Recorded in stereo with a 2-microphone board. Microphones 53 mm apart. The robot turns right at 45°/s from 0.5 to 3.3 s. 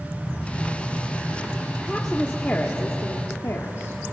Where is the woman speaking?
5° right, 1.4 m; by 4.0 s 65° left, 1.4 m.